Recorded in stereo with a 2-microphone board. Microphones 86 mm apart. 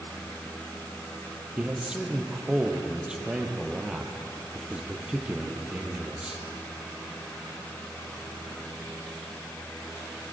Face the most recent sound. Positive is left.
turn(degrees=-10)  # may be behind; listen again after turning